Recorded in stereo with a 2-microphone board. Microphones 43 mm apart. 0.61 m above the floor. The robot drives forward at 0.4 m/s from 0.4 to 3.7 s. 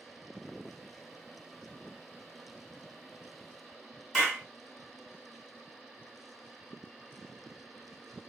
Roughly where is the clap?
Centre.